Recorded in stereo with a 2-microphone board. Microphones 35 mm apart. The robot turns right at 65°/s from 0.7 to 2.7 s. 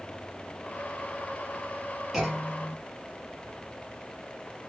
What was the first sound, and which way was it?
A clunk, 10° right.